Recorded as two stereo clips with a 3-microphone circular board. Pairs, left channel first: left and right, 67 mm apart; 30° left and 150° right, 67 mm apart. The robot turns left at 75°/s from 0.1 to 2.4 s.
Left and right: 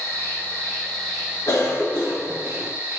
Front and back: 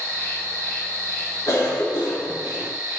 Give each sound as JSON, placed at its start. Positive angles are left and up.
{"t": 0.0, "sound": "an insect", "azimuth_deg": 80, "distance_m": 1.3}
{"t": 1.5, "sound": "a cough", "azimuth_deg": 60, "distance_m": 0.6}